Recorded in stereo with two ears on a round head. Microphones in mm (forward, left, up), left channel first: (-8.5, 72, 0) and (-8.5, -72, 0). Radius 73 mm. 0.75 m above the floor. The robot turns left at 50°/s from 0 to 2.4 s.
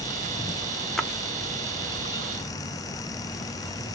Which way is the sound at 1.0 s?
5° left (ahead or behind).